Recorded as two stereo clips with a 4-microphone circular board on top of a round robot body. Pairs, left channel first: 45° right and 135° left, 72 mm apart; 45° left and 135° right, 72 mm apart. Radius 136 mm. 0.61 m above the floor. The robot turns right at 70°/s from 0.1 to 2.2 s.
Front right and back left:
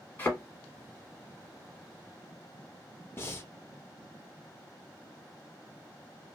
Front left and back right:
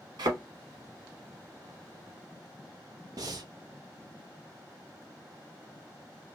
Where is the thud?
110° right, 0.9 m; by 0.4 s 95° right, 0.9 m.